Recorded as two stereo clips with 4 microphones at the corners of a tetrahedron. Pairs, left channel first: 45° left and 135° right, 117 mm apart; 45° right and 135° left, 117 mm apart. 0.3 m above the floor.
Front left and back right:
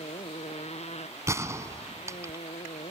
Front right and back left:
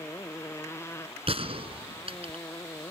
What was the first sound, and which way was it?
A motorcycle, 20° left.